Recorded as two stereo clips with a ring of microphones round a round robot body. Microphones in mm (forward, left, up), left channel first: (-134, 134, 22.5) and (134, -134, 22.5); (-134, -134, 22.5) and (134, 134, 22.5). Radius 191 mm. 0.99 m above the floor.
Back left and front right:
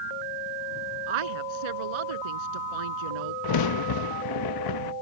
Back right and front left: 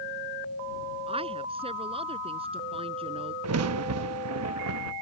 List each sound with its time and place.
1.1 s a woman speaking: 30° right
3.4 s a crack: 100° left